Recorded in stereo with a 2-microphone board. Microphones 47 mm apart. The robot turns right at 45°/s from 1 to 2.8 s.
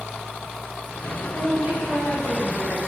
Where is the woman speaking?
170° right, 2 m; by 2.8 s 105° right, 2 m.